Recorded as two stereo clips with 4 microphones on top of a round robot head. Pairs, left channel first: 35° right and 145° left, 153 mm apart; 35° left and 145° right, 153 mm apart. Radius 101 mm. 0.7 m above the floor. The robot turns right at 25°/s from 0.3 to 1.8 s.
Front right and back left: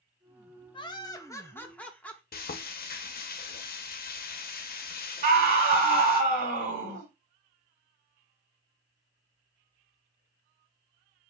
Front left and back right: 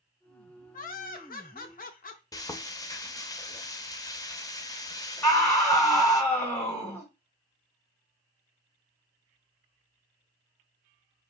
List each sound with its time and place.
0.7 s laughter: 20° left, 0.8 m; by 2.2 s 45° left, 0.8 m
2.3 s frying: 30° right, 0.5 m
5.2 s a scream: 115° left, 2.0 m